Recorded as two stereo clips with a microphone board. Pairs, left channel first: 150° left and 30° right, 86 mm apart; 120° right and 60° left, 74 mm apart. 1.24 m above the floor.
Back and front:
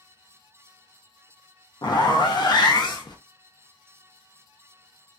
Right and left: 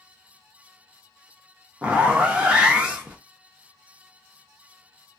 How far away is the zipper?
About 0.7 m.